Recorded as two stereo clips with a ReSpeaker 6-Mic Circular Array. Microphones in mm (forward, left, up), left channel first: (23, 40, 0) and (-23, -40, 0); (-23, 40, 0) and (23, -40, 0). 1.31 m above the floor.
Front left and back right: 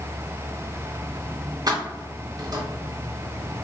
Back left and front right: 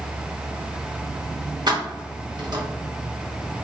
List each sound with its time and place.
1.7 s keys jangling: 85° right, 0.7 m